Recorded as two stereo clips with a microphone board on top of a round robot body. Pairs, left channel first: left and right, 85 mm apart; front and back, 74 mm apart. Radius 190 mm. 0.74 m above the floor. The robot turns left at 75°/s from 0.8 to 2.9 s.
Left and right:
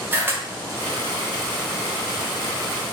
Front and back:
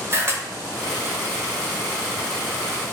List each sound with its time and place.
0.1 s a camera shutter: 145° right, 1.1 m